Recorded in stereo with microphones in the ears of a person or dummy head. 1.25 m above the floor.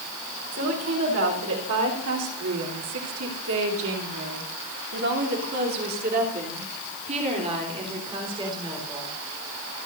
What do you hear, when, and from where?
0.5 s a woman speaking: 70° right (ahead or behind), 4.5 m; by 9.1 s 20° right (ahead or behind), 4.5 m